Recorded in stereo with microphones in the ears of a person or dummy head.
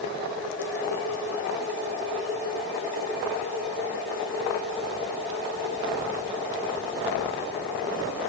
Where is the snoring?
No snoring in this recording.